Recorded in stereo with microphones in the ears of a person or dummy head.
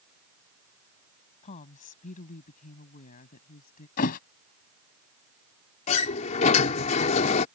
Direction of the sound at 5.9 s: 40° left (ahead or behind).